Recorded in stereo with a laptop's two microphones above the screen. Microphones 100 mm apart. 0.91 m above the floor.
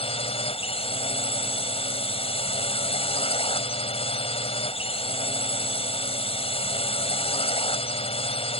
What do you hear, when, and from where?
0.0 s a drone: 70° left (ahead or behind)